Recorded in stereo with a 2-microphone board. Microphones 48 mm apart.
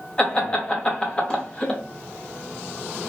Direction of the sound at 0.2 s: 20° left (ahead or behind).